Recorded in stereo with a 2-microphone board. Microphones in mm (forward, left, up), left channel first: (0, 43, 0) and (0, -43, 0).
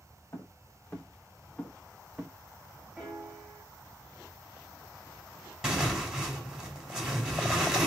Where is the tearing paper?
5° right (ahead or behind), 1.8 m.